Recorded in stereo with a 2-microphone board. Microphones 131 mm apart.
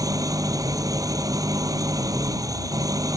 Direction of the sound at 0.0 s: 25° right (ahead or behind).